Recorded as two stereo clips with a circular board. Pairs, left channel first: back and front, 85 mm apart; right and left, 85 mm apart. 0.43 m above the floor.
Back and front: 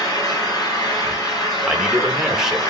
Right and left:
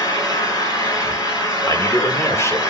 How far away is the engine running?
About 1.9 m.